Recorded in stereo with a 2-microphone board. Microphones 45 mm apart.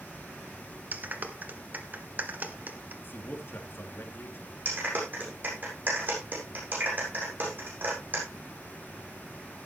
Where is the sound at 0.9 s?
45° right (ahead or behind), 1.5 m.